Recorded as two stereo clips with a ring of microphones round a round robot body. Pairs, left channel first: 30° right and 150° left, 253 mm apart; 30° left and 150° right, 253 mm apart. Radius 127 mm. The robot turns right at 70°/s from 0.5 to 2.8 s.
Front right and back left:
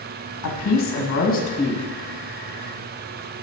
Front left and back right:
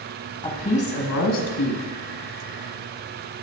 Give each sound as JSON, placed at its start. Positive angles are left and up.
{"t": 0.4, "sound": "a woman speaking", "azimuth_deg": -35, "distance_m": 1.3}